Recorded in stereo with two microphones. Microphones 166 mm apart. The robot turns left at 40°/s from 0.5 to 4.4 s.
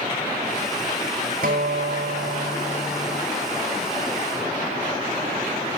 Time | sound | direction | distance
1.4 | a guitar | 80° right | 4 m